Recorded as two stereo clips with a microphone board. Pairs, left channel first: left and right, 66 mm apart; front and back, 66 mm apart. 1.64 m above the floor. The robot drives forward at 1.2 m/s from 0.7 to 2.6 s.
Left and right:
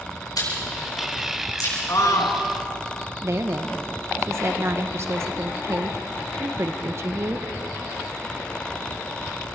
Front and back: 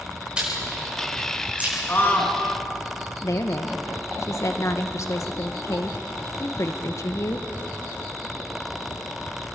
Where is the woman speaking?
40° right, 1.5 m.